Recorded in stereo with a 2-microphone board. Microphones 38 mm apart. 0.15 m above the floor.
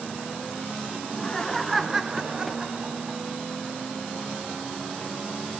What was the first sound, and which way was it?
Laughter, 25° left (ahead or behind).